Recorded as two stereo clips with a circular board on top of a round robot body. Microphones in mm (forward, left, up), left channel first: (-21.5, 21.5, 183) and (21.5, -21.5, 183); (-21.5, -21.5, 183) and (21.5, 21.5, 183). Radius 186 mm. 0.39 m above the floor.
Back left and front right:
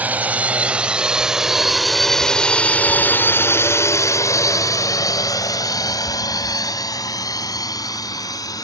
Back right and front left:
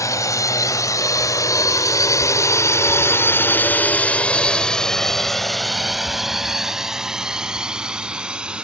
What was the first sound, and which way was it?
A drone, 110° right.